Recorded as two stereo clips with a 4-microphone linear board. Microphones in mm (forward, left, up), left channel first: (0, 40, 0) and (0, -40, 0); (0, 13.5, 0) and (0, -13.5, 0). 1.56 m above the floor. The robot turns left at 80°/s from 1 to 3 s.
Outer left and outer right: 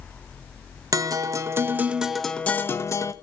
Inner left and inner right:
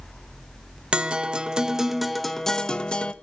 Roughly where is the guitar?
Right.